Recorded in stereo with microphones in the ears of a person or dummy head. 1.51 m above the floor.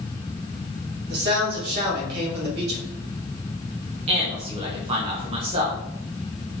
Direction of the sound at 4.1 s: 35° right (ahead or behind).